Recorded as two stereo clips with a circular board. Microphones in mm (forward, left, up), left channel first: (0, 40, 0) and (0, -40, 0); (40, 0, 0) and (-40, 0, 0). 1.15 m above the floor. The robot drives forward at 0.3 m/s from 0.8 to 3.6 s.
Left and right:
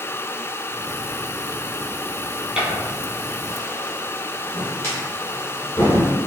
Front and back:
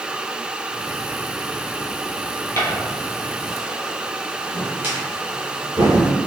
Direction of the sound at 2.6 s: 20° right.